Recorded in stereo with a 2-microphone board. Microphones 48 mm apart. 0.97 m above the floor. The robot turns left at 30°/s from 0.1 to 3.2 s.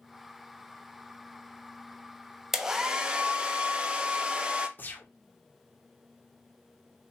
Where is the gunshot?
40° left (ahead or behind), 1.0 m.